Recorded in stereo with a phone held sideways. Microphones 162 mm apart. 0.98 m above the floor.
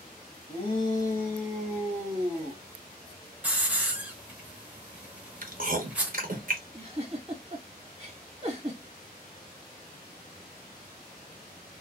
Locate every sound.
0.5 s a shout: 40° left (ahead or behind), 1.0 m; by 2.6 s 40° right (ahead or behind), 1.0 m
3.4 s a hiss: 10° right (ahead or behind), 0.8 m
5.4 s chewing: 60° right (ahead or behind), 0.7 m
6.7 s a giggle: 35° right (ahead or behind), 1.3 m